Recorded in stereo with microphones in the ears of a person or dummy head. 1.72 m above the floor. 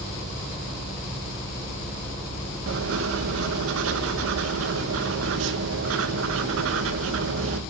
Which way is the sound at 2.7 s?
80° right.